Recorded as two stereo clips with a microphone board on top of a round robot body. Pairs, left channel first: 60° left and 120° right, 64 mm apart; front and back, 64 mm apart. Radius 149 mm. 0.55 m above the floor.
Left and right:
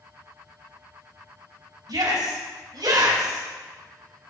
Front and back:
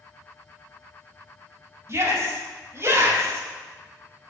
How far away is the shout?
About 5.5 m.